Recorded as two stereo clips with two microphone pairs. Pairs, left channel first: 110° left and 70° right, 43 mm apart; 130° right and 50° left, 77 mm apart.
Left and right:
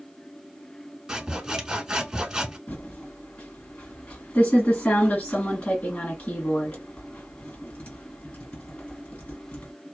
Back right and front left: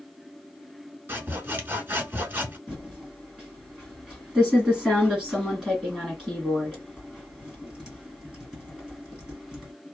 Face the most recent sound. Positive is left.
turn(degrees=130)